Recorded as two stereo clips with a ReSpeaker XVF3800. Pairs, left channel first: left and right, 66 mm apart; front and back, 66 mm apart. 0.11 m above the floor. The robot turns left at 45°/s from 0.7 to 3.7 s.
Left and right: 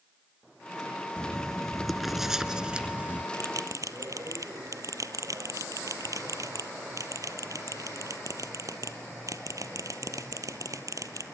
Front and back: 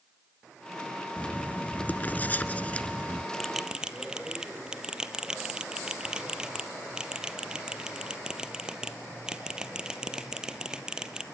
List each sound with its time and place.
1.2 s writing: 35° left, 1.3 m; by 3.2 s 55° right, 1.3 m
3.3 s a bell: 85° right, 1.4 m; by 11.2 s 105° right, 1.4 m